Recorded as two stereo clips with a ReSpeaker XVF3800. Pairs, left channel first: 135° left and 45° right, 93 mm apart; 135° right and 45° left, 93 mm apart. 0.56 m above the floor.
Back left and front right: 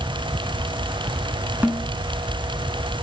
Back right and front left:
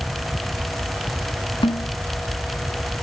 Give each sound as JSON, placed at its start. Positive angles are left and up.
{"t": 1.6, "sound": "a snare drum", "azimuth_deg": -115, "distance_m": 1.3}